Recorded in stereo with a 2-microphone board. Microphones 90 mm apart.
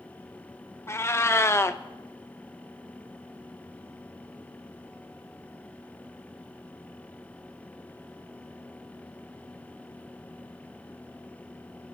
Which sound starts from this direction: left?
A cat meowing, at 0.9 s.